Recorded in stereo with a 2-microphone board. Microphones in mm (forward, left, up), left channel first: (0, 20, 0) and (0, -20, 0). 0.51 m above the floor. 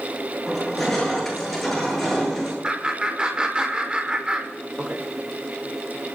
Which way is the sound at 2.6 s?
25° right (ahead or behind).